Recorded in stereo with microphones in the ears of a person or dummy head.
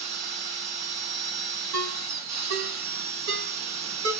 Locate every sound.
0.0 s a machine running: 45° right (ahead or behind), 1.0 m
1.7 s a ringtone: 55° right (ahead or behind), 0.7 m